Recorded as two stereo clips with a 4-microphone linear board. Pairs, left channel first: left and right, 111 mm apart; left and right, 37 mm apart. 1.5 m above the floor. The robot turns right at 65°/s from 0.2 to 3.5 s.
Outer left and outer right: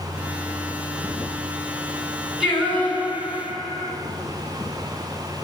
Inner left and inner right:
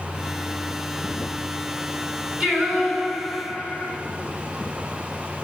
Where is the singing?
5° right, 6 m; by 4.0 s 65° left, 6 m.